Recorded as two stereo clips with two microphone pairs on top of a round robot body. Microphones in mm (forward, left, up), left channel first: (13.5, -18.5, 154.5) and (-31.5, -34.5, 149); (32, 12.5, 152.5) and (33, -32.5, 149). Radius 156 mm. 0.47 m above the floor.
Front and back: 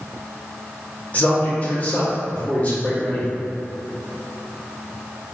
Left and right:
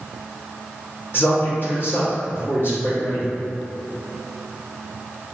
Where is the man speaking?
75° left, 1.3 m.